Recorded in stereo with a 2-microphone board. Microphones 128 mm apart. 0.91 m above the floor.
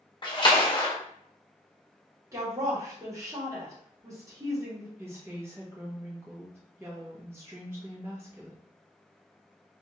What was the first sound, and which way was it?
A splash, 35° left (ahead or behind).